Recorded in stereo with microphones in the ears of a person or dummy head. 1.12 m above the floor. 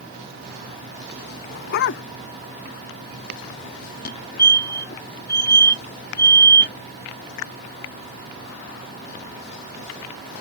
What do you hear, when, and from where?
1.5 s a dog barking: 60° left (ahead or behind)
4.0 s a fire alarm: 50° left (ahead or behind)